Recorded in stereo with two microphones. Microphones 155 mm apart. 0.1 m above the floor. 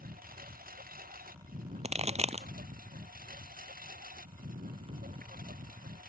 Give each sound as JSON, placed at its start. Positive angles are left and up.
{"t": 0.0, "sound": "a lawn mower", "side_deg": -70}
{"t": 1.8, "sound": "a pop", "side_deg": -45}